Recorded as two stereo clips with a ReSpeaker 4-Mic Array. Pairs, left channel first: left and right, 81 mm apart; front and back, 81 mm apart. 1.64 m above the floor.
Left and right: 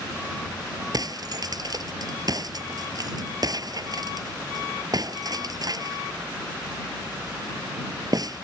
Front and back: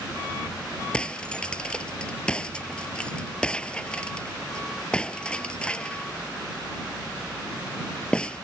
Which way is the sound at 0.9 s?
75° right.